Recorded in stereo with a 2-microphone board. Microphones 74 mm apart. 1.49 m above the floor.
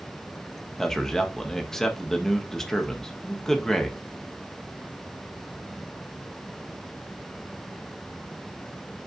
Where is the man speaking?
5° left (ahead or behind), 0.9 m.